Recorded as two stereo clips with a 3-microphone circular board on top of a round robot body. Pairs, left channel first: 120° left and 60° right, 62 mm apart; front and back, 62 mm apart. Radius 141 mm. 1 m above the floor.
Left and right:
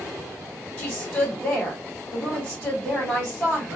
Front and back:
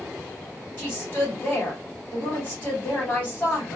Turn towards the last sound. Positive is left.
turn(degrees=60)